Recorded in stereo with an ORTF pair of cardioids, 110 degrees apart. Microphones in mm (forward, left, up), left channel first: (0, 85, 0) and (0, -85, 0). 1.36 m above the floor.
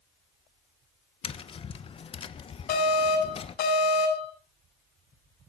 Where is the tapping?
35° left, 1.2 m.